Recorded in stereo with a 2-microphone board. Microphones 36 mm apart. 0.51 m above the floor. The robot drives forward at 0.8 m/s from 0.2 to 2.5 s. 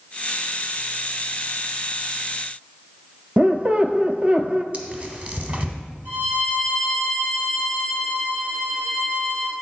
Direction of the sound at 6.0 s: 60° right (ahead or behind).